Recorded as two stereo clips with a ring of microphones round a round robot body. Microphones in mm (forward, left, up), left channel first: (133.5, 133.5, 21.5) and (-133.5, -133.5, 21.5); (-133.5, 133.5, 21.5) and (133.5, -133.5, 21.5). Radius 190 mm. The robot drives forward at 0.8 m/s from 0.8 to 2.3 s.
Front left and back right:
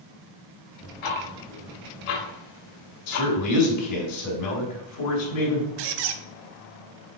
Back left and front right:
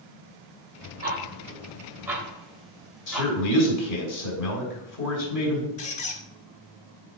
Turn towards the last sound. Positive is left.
turn(degrees=-155)